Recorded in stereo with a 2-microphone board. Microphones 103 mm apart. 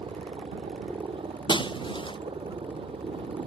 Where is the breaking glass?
50° left (ahead or behind).